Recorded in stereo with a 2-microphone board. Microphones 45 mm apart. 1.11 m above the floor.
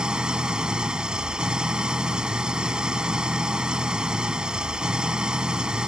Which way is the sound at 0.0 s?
20° right (ahead or behind).